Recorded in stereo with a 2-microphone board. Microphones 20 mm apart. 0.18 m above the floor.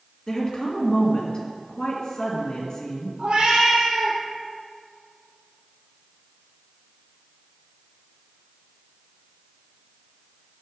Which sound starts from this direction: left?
A woman speaking, at 0.3 s.